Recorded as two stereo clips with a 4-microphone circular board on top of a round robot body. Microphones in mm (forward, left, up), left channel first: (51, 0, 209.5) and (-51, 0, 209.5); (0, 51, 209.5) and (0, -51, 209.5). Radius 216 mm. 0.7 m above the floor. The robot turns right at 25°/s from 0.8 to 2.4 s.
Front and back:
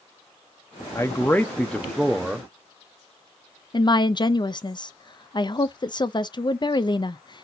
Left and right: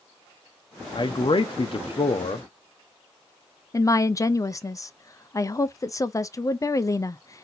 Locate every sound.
0.9 s a man speaking: 60° left, 0.8 m; by 2.5 s 95° left, 0.8 m
3.7 s a woman speaking: 35° left, 0.6 m